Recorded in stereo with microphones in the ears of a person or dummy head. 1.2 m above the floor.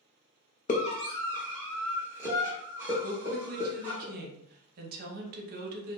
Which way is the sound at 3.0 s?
50° right (ahead or behind).